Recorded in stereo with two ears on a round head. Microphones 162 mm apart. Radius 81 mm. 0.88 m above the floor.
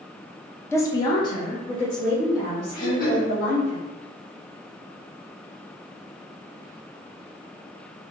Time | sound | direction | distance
0.7 | a woman speaking | 15° left (ahead or behind) | 0.6 m
2.8 | throat clearing | 55° left (ahead or behind) | 1.2 m